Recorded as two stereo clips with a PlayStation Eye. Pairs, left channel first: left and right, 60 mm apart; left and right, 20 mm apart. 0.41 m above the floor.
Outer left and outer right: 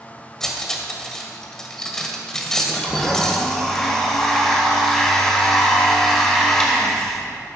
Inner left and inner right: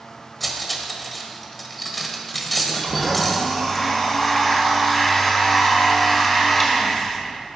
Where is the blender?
10° left (ahead or behind), 1.8 m.